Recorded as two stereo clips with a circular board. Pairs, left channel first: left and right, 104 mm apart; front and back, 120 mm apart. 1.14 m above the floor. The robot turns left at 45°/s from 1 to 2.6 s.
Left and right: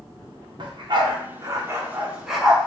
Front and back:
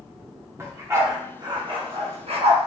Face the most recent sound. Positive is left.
turn(degrees=170)